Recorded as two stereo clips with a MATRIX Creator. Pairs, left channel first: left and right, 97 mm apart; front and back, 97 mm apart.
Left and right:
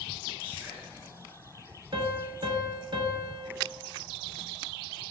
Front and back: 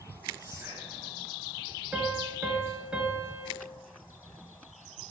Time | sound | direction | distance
0.4 | whispering | 150° right | 1.9 m
1.9 | a piano | 105° right | 0.6 m